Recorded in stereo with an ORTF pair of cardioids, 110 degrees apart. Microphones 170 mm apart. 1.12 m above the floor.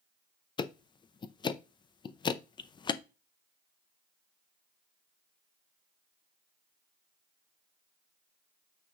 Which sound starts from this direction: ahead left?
Ticking, at 0.6 s.